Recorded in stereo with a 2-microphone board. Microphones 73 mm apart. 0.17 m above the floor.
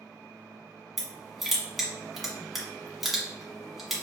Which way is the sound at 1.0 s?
Centre (ahead or behind).